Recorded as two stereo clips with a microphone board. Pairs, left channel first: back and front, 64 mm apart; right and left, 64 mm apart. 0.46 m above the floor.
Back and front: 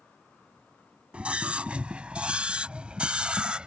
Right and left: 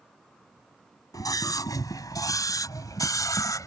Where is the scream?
75° right.